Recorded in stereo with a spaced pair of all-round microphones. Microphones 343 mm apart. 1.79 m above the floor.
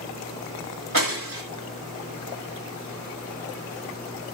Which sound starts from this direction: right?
Breaking glass, at 0.9 s.